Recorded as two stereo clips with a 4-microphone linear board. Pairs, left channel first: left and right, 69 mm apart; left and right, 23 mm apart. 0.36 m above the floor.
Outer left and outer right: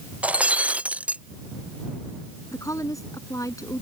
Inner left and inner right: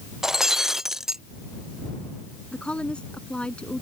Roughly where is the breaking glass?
Centre.